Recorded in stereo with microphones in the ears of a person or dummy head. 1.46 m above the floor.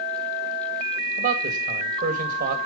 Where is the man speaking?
45° right (ahead or behind), 1.8 m.